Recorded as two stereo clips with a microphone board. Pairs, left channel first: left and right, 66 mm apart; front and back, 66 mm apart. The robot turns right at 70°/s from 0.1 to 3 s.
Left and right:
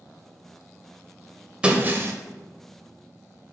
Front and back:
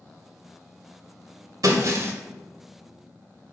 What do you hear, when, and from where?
1.6 s breaking glass: 160° right, 1.4 m; by 2.1 s 125° right, 1.4 m